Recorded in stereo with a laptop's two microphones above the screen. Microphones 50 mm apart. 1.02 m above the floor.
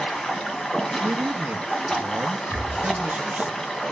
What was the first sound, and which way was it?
Running water, 10° left (ahead or behind).